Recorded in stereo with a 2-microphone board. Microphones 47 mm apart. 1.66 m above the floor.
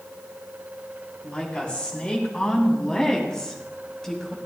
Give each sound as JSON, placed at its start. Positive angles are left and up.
{"t": 1.2, "sound": "a woman speaking", "side_deg": 25, "distance_m": 4.5}